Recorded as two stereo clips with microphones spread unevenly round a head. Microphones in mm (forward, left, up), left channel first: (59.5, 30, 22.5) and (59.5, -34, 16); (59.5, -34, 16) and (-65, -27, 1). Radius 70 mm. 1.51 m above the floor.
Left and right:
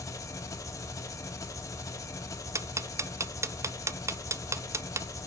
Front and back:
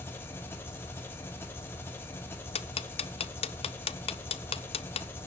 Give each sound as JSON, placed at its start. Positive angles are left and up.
{"t": 0.0, "sound": "an engine running", "azimuth_deg": 65, "distance_m": 1.2}
{"t": 2.5, "sound": "ticking", "azimuth_deg": -50, "distance_m": 0.7}